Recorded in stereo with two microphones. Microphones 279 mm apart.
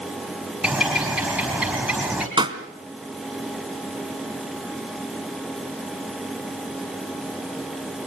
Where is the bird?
5° right (ahead or behind), 4 m.